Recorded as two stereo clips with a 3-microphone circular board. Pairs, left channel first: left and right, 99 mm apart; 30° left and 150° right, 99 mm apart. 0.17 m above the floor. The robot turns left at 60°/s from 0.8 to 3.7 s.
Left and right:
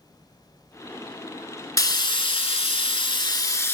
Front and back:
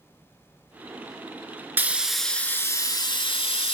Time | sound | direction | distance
1.8 | frying | 145° left | 0.5 m